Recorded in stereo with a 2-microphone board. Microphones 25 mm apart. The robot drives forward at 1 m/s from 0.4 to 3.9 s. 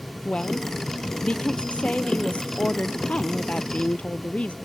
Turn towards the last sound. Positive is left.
turn(degrees=65)  # may be behind; listen again after turning